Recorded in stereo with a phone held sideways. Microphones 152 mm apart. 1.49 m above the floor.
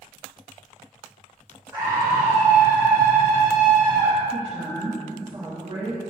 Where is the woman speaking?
40° right (ahead or behind), 2 m.